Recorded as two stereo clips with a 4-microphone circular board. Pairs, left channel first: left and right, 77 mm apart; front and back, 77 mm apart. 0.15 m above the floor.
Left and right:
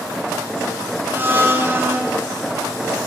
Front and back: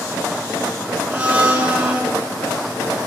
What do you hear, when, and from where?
1.1 s a blender: 120° right, 1.1 m